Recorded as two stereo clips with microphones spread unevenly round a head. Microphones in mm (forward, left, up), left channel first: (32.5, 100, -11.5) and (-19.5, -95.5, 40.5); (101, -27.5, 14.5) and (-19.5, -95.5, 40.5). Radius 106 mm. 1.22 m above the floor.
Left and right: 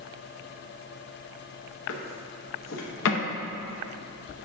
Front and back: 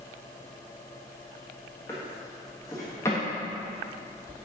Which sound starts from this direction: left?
A drawer, at 1.9 s.